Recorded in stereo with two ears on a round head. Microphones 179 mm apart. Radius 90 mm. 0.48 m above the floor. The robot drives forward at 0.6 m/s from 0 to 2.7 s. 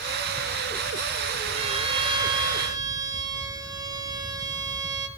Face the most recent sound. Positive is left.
turn(degrees=-20)  # may be behind; listen again after turning